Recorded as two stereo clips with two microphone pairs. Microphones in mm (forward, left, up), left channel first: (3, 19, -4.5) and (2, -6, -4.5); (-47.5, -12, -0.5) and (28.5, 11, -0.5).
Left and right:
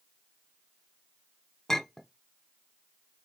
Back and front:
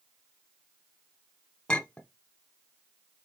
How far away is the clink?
About 0.6 m.